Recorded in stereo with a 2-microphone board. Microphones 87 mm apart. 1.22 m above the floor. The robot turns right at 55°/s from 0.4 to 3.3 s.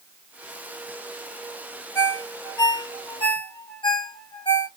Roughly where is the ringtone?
Left.